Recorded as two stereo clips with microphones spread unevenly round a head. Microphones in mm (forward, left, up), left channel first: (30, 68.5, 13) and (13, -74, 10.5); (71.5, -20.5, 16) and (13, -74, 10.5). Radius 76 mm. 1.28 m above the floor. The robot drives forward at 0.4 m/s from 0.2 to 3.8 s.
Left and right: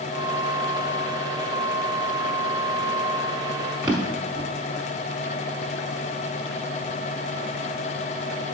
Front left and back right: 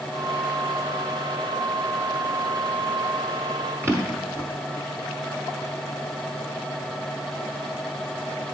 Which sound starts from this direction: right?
A drawer, at 3.8 s.